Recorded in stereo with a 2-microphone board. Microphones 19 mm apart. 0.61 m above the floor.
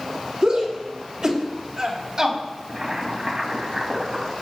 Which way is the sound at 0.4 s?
50° right (ahead or behind).